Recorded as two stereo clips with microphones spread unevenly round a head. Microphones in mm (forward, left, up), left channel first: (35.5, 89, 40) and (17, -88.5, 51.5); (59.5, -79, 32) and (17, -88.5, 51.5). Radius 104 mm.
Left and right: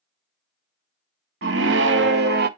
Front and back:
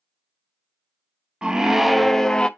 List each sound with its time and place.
1.4 s a scream: 120° right, 0.7 m; by 2.5 s 70° right, 0.8 m